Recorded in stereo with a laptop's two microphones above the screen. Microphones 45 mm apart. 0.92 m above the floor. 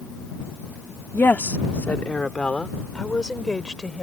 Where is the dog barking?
I don't hear a dog barking.